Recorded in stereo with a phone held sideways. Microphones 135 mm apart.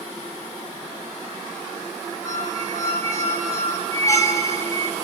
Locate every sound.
2.2 s a squeak: 25° left (ahead or behind), 4.5 m